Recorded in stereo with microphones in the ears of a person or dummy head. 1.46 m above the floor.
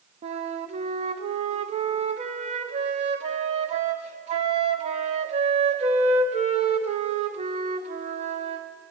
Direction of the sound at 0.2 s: 30° right (ahead or behind).